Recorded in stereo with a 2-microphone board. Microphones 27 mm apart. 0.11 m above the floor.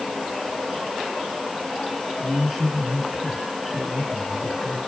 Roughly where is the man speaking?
Centre.